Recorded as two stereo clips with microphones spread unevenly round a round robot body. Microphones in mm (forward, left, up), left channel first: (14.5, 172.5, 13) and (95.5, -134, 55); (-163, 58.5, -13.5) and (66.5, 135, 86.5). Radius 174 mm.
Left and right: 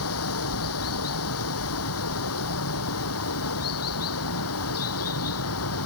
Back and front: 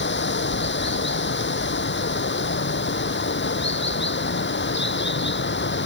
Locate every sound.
0.0 s running water: 155° left